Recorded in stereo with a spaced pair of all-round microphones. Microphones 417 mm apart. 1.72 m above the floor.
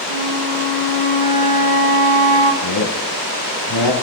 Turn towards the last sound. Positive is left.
turn(degrees=70)  # may be behind; listen again after turning